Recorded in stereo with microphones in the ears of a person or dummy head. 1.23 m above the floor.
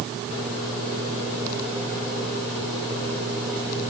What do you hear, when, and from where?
Only background noise.